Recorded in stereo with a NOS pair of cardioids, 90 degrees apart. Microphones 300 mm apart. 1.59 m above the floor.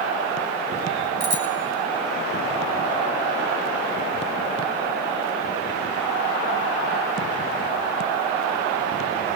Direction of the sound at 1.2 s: 60° right.